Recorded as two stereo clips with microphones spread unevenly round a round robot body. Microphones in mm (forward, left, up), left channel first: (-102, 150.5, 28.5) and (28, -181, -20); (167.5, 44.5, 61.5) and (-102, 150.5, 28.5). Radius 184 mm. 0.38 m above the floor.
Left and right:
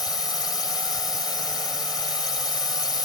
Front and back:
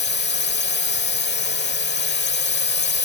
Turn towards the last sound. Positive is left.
turn(degrees=30)